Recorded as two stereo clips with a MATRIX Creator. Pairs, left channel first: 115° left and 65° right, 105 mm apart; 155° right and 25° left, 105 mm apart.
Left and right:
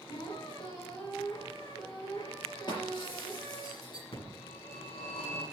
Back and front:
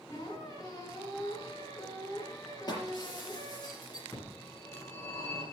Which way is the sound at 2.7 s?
155° left.